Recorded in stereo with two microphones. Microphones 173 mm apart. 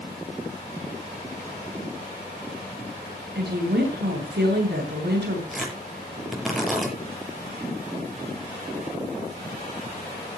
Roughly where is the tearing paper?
Centre.